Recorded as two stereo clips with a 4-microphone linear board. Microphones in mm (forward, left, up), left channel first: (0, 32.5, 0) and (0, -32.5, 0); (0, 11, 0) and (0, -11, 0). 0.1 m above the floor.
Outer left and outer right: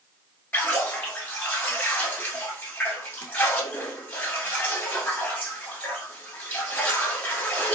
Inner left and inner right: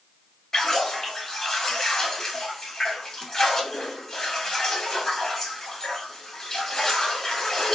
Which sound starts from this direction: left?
A splash, at 0.5 s.